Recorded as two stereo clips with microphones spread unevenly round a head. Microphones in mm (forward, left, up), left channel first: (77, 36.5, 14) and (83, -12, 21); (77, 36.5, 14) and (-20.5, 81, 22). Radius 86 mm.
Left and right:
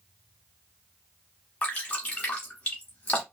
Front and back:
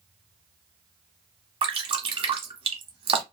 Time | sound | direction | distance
1.6 | dripping | 145° left | 0.9 m